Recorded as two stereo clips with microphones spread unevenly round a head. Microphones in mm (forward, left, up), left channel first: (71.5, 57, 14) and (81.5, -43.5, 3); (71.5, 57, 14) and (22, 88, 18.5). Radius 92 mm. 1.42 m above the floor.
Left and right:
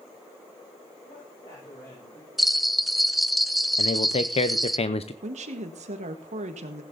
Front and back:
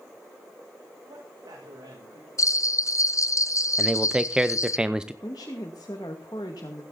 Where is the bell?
5° left, 0.8 m.